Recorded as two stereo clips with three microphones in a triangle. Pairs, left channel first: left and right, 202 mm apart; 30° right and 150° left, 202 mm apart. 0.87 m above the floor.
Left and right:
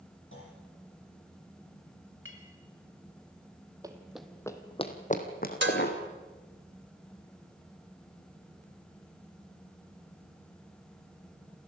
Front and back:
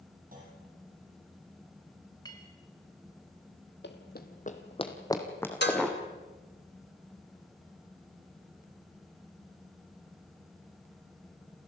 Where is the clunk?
105° left, 7.5 m.